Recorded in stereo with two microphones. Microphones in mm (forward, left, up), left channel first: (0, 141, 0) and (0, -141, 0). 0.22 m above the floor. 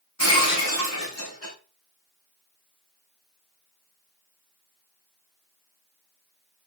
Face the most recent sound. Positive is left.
turn(degrees=75)  # may be behind; listen again after turning